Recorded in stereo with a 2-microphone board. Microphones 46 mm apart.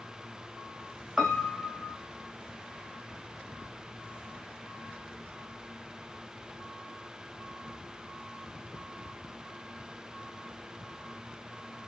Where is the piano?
10° right (ahead or behind), 2 m.